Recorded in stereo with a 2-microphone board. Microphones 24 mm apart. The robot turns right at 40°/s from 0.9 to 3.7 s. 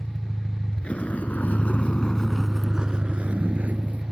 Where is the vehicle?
35° left (ahead or behind); by 4.1 s 85° right.